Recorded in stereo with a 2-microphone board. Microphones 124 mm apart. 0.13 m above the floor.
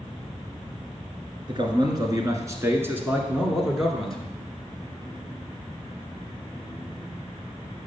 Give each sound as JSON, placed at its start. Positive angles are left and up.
{"t": 1.5, "sound": "a man speaking", "side_deg": -40, "distance_m": 1.8}